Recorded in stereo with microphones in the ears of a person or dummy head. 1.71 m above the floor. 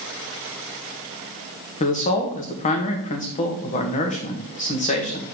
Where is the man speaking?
40° left (ahead or behind), 1.1 m.